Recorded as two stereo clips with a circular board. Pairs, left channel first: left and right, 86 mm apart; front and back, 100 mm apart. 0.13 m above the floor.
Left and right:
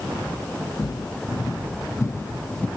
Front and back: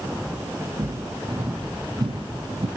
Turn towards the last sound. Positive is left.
turn(degrees=165)